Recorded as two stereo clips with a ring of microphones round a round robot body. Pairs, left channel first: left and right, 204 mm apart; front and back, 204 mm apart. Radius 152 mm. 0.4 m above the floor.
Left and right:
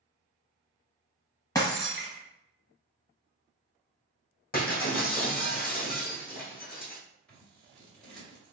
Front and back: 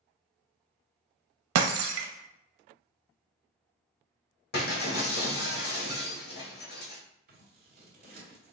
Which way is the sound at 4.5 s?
45° left.